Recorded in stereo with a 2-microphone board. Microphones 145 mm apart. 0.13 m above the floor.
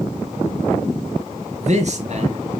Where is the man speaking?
55° right (ahead or behind), 2.5 m.